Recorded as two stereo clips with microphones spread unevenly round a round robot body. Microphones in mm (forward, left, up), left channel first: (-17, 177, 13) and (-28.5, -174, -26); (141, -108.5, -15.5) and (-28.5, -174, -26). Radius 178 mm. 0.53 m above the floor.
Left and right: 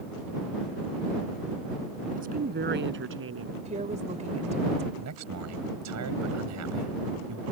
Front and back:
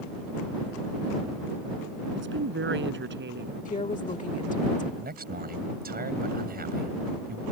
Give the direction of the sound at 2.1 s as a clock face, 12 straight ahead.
5 o'clock.